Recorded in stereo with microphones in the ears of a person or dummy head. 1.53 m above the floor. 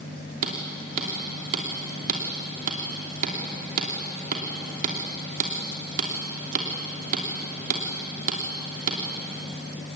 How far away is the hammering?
About 3 m.